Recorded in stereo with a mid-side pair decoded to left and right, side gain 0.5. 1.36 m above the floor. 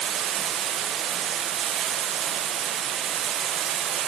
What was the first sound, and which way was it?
Running water, 55° right.